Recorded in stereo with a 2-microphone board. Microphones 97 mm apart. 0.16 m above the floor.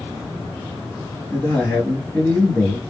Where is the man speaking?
20° left (ahead or behind), 2.5 m.